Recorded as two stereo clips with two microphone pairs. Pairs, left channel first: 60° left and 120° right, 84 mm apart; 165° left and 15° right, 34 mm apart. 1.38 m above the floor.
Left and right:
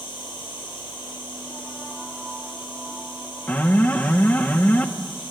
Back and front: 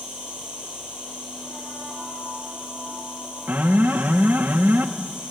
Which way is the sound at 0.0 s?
45° left.